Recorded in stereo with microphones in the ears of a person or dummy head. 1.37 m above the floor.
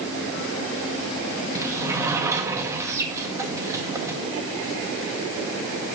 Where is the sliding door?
15° right (ahead or behind), 1.7 m.